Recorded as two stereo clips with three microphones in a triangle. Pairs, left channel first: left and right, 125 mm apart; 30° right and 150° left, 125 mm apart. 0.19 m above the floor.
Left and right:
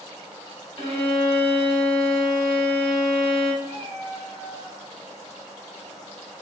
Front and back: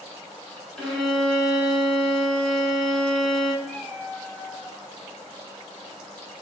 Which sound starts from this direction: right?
A cat meowing, at 3.6 s.